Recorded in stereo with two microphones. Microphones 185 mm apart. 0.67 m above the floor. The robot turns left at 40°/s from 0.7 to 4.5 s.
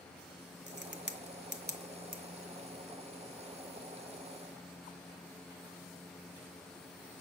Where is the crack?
70° right (ahead or behind), 0.8 m; by 2.2 s 45° right (ahead or behind), 0.8 m.